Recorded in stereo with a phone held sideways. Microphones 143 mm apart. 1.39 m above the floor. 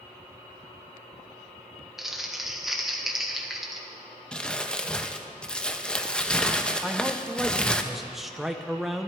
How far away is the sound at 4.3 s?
About 0.8 m.